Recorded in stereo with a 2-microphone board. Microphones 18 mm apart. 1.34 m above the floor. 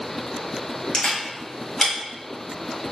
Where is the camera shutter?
55° left (ahead or behind), 1.4 m.